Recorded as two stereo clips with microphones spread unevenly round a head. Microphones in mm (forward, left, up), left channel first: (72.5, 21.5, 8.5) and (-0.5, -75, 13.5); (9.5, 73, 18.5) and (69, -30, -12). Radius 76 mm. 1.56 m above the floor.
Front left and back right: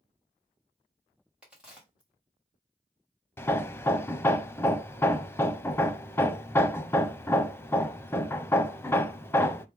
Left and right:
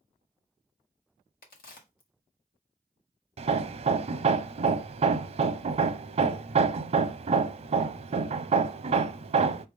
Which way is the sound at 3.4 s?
20° right.